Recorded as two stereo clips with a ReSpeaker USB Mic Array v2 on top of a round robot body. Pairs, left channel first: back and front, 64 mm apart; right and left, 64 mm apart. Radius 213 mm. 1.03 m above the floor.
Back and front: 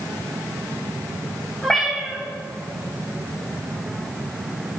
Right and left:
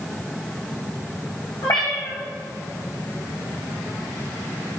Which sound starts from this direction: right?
A cat meowing, at 1.6 s.